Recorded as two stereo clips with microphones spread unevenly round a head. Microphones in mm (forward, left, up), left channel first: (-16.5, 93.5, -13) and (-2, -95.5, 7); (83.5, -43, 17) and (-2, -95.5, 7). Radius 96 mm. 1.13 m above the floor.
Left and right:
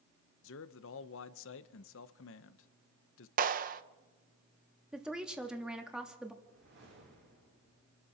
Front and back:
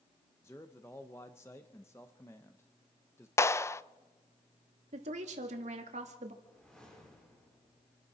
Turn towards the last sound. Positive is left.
turn(degrees=-50)